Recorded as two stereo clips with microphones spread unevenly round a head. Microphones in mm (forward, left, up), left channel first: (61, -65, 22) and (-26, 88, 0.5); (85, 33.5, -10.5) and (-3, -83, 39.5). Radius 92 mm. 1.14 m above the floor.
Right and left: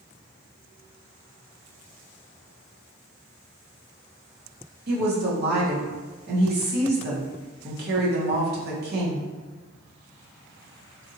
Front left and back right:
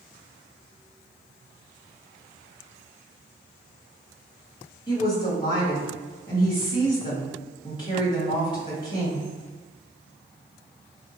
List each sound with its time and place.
4.9 s a woman speaking: 105° left, 1.2 m